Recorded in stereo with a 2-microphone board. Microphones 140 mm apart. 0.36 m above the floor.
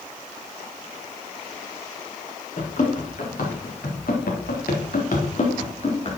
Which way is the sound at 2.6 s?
60° left (ahead or behind).